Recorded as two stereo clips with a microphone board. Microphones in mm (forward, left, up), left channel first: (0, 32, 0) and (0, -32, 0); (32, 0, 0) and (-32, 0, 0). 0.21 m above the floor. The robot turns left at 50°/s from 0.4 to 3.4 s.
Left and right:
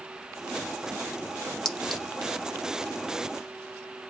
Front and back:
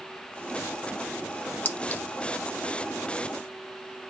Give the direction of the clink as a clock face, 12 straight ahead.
11 o'clock.